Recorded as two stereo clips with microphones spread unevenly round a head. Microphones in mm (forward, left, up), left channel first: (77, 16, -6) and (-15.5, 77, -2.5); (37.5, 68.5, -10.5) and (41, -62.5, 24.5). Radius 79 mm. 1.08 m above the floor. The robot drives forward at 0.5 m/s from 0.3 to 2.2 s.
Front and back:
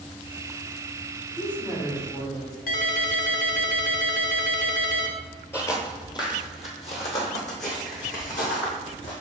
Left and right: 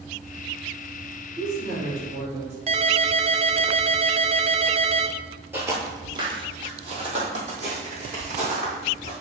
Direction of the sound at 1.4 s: 95° right.